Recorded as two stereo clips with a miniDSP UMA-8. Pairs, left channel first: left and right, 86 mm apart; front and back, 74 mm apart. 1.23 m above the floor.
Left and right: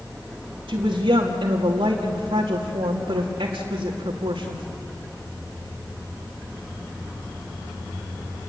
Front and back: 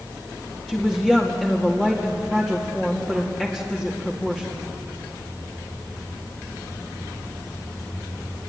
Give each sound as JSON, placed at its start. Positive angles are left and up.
{"t": 0.7, "sound": "a woman speaking", "azimuth_deg": -85, "distance_m": 2.5}